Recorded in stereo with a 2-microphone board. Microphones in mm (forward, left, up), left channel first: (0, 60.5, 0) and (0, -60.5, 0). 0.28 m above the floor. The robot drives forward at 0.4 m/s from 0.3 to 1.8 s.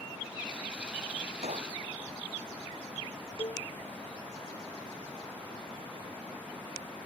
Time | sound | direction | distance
1.4 | a gunshot | 60° right (ahead or behind) | ?
3.4 | a cowbell | 55° left (ahead or behind) | ?